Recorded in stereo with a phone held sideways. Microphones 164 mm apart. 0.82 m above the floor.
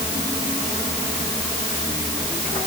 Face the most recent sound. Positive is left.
No sound to turn to.